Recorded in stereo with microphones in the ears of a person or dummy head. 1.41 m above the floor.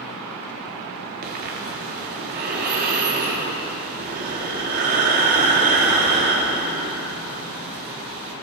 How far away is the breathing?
About 4 m.